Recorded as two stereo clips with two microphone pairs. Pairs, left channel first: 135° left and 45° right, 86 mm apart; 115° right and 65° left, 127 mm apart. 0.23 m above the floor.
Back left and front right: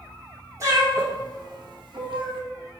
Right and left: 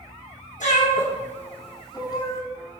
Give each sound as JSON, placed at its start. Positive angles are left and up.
{"t": 0.6, "sound": "a cat meowing", "azimuth_deg": -100, "distance_m": 1.1}